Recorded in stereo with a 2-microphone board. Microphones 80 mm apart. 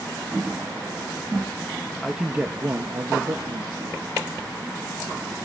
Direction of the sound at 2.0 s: Centre (ahead or behind).